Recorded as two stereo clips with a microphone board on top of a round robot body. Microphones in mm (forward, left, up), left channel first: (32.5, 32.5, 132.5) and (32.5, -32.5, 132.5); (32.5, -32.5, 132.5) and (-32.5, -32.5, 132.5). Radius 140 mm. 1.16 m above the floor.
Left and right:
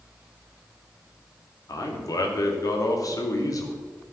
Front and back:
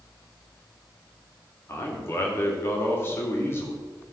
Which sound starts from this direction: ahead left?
A man speaking, at 1.7 s.